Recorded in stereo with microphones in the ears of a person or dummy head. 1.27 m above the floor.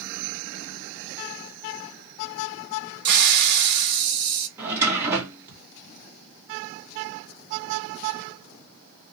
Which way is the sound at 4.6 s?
15° right (ahead or behind).